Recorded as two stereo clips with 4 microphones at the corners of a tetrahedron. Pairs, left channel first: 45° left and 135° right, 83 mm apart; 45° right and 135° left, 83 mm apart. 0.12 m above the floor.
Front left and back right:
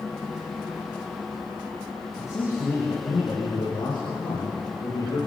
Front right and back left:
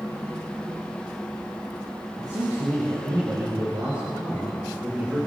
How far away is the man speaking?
About 5.5 m.